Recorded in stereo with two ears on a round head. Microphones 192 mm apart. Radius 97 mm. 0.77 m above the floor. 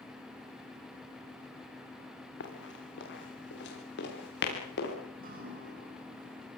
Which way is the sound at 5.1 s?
45° right (ahead or behind).